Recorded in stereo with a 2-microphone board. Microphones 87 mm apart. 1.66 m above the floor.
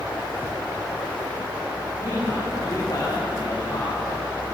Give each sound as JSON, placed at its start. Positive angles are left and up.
{"t": 2.0, "sound": "a man speaking", "side_deg": 50, "distance_m": 7.5}